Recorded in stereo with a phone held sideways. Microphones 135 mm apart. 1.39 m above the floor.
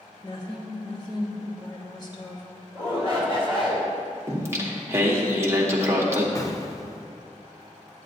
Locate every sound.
0.2 s a woman speaking: 30° left (ahead or behind), 1.4 m
2.8 s a shout: 40° left (ahead or behind), 3 m
4.3 s singing: 20° right (ahead or behind), 1.2 m
6.3 s an explosion: 25° left (ahead or behind), 0.6 m